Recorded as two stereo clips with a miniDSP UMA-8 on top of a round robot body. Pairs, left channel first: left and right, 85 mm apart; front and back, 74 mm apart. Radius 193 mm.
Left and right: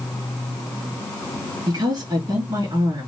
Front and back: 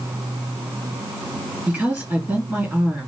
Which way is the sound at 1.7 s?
105° right.